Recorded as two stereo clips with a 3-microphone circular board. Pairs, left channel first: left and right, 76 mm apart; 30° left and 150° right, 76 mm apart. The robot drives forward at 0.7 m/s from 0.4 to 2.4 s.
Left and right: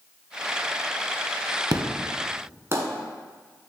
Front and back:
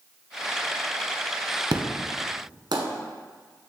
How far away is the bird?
I don't hear a bird.